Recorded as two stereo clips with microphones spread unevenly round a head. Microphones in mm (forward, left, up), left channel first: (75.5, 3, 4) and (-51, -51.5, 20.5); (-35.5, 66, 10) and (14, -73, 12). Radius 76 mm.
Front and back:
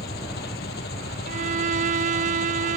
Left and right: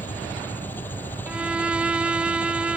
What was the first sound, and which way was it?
An engine running, 35° left.